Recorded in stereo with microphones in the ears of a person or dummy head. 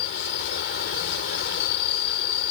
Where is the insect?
55° left (ahead or behind).